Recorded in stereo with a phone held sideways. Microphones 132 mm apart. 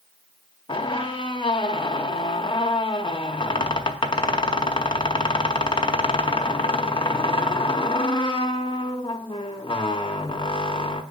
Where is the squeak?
40° left (ahead or behind), 0.6 m.